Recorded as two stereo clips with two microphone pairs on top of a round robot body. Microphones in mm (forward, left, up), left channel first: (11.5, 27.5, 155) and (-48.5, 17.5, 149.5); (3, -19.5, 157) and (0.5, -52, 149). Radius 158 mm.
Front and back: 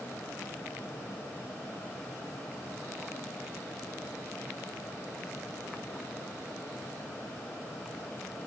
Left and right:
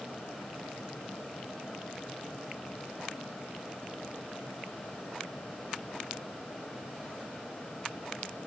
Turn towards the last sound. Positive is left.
No sound to turn to.